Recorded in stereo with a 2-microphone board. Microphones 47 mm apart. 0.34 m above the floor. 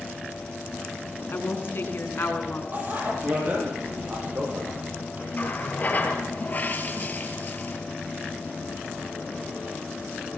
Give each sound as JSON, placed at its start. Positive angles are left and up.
{"t": 1.3, "sound": "a woman speaking", "side_deg": 55, "distance_m": 4.0}
{"t": 2.7, "sound": "a bicycle bell", "side_deg": -40, "distance_m": 7.5}
{"t": 5.3, "sound": "a running tap", "side_deg": 35, "distance_m": 4.0}